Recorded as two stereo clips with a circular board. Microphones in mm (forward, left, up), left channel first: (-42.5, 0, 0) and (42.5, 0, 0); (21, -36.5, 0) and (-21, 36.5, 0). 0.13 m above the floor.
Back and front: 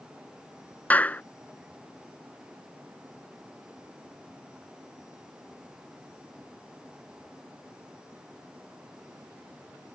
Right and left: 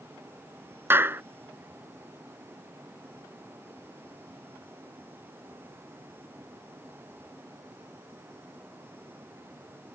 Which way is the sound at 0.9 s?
135° left.